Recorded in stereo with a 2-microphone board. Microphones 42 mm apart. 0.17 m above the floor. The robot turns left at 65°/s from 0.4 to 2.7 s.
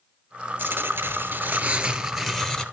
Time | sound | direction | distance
0.6 | tearing paper | 75° right | 1.1 m